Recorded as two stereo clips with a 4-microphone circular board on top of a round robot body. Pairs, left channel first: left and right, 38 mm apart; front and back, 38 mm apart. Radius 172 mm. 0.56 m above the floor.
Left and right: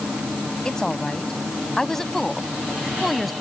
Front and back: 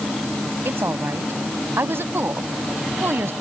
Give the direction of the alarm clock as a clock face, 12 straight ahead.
No alarm clock in this recording.